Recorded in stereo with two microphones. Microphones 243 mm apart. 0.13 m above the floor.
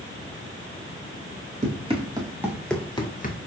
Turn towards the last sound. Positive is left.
turn(degrees=40)  # may be behind; listen again after turning